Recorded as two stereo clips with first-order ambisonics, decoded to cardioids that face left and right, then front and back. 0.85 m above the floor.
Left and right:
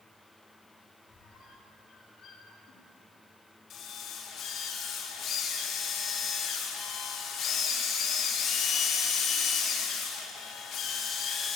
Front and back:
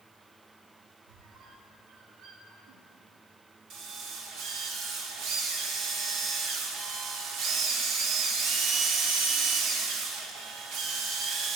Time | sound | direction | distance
1.1 | a squeak | 150° left | 3.5 m
3.7 | a drill | 145° left | 1.8 m